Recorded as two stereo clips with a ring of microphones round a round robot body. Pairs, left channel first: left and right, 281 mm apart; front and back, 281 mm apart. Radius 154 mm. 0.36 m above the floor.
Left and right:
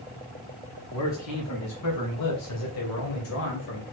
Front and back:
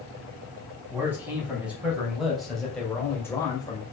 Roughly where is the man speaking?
Left.